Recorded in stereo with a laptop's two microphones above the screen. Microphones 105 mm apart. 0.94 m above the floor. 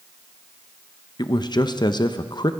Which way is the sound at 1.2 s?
45° left (ahead or behind).